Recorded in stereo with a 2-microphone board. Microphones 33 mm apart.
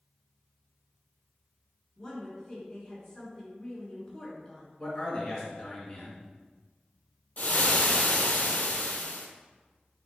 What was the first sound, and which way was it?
A woman speaking, 20° left (ahead or behind).